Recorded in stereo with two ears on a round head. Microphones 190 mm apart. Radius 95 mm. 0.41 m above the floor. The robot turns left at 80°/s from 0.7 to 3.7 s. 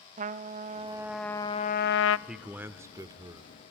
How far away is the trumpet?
About 0.5 m.